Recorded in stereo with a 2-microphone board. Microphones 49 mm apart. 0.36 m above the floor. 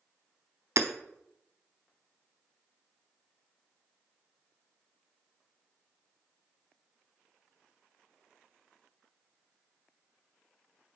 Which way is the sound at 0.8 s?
80° right.